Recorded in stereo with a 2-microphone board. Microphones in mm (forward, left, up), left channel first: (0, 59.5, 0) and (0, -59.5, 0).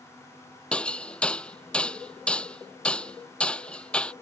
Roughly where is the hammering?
Centre.